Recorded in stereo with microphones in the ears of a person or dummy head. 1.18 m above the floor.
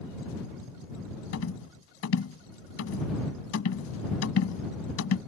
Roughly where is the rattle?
Left.